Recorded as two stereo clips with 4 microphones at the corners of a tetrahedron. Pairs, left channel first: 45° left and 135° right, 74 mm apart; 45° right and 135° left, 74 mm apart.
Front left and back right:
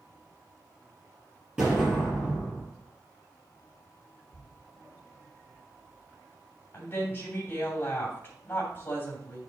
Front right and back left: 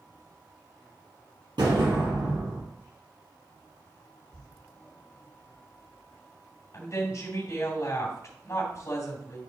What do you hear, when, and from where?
1.6 s an explosion: 150° left, 5 m
4.3 s a thud: 160° left, 4.5 m
6.7 s a woman speaking: 10° right, 2.5 m